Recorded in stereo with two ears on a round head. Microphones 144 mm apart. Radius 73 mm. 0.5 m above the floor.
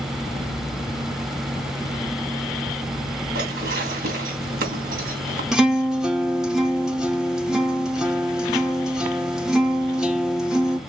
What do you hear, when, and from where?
3.4 s dishes clattering: 65° right (ahead or behind), 2.5 m
5.5 s a guitar: 5° right (ahead or behind), 0.9 m